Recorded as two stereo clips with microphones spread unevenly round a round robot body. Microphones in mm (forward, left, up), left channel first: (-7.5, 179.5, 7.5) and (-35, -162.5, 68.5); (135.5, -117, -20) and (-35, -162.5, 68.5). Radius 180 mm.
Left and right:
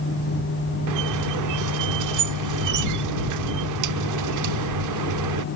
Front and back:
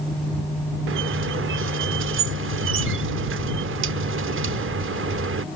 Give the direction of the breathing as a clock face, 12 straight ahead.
No breathing in this recording.